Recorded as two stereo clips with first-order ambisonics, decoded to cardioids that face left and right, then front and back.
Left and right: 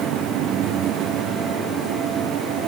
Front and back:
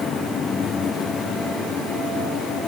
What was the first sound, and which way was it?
Only background noise.